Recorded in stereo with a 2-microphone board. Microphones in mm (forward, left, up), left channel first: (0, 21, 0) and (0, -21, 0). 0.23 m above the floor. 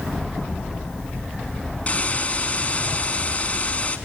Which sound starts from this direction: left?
A hiss, at 1.9 s.